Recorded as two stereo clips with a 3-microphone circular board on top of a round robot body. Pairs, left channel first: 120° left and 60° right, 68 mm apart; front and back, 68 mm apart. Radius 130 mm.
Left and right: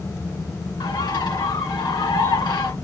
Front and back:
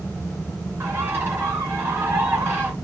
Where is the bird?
120° left, 3 m.